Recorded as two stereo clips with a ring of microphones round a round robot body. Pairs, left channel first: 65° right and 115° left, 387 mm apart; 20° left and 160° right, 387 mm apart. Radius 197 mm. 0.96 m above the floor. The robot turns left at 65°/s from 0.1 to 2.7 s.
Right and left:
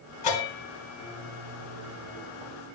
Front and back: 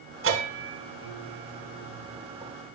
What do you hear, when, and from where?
0.2 s a bell: 95° right, 3 m; by 2.5 s 115° left, 3 m